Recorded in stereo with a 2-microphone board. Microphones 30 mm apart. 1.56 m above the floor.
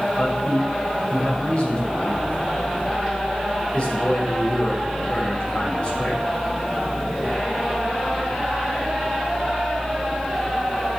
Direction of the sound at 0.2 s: 30° left (ahead or behind).